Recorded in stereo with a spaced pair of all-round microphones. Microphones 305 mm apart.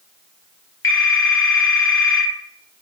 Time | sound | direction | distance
0.8 | a phone ringing | 40° left (ahead or behind) | 0.7 m